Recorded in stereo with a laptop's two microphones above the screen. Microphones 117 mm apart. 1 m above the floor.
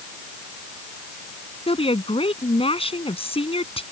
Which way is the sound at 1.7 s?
55° left (ahead or behind).